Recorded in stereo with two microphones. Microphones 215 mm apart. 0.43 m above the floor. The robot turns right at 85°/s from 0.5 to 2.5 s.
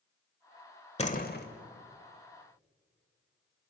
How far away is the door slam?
About 1.4 m.